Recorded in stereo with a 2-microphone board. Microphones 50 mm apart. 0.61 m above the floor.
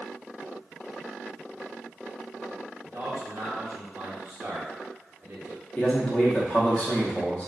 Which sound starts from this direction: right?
A man speaking, at 2.8 s.